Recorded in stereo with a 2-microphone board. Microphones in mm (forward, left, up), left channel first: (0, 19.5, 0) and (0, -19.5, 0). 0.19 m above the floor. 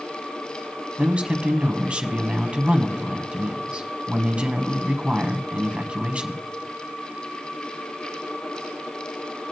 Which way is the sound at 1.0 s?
30° right (ahead or behind).